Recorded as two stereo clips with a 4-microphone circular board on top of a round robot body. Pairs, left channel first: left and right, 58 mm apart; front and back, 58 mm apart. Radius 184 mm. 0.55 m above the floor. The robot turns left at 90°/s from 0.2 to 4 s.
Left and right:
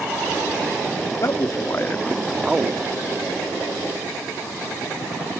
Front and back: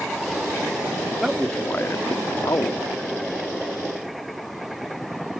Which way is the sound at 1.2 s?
100° left.